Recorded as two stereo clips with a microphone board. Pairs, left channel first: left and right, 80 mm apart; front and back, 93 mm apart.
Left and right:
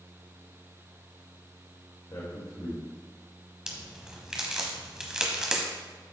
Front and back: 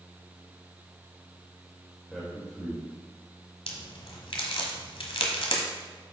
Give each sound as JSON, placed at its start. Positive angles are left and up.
{"t": 2.1, "sound": "a man speaking", "azimuth_deg": 90, "distance_m": 1.8}
{"t": 3.7, "sound": "a crack", "azimuth_deg": -10, "distance_m": 1.3}